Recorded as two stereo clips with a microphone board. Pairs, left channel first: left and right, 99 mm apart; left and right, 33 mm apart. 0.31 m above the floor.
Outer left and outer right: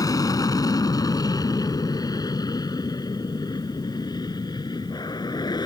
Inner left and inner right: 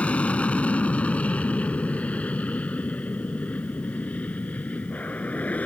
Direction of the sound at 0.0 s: 35° left (ahead or behind).